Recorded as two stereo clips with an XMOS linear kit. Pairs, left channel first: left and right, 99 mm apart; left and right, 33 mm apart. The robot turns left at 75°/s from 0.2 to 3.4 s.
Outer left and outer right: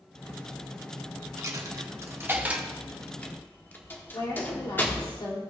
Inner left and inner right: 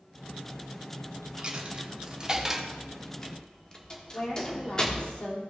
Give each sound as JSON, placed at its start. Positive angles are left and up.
{"t": 1.4, "sound": "a dropped coin", "side_deg": -30, "distance_m": 1.0}
{"t": 4.1, "sound": "a woman speaking", "side_deg": 45, "distance_m": 3.0}